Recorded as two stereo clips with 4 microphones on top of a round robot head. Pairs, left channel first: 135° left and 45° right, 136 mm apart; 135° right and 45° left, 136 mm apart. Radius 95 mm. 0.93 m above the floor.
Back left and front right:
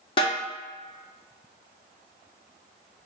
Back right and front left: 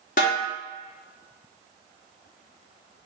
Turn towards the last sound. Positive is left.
turn(degrees=-170)